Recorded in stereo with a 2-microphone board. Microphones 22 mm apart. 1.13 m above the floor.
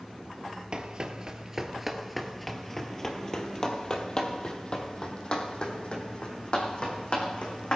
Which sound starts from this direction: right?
Running footsteps, at 0.7 s.